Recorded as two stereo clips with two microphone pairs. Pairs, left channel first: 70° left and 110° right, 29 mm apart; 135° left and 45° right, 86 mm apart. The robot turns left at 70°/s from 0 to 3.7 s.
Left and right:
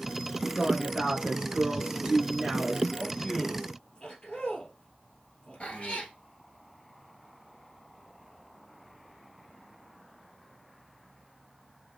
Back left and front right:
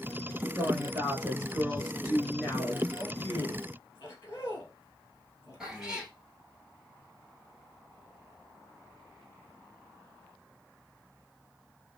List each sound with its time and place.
0.6 s a woman speaking: 35° right, 1.4 m; by 2.9 s 165° left, 1.4 m
3.0 s a man speaking: 145° left, 2 m; by 6.1 s 95° left, 2 m
5.6 s a cat meowing: 40° left, 1.1 m